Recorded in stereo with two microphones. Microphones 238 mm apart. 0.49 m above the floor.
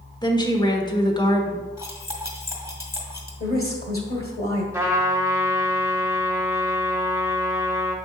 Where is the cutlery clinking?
15° right (ahead or behind), 1.8 m.